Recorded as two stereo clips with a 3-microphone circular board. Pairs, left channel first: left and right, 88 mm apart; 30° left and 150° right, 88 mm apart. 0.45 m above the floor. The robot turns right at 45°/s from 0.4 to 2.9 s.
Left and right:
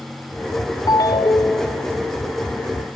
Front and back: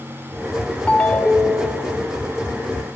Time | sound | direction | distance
0.9 | a ringtone | 100° left | 0.8 m